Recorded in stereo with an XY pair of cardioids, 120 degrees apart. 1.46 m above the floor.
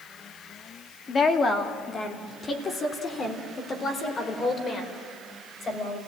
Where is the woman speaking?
35° left, 2.5 m.